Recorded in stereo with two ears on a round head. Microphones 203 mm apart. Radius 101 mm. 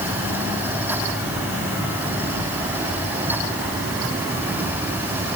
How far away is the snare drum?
I don't hear a snare drum.